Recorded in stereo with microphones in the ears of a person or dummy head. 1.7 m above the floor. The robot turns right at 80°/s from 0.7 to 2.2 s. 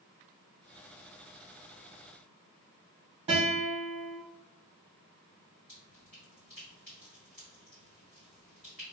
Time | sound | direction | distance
3.3 | a guitar | 30° right (ahead or behind) | 1.2 m
5.7 | dripping | 15° right (ahead or behind) | 1.6 m